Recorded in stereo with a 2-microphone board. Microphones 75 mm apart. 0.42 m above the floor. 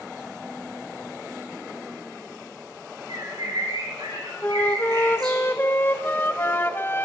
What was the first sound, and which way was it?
A bird, 60° right (ahead or behind).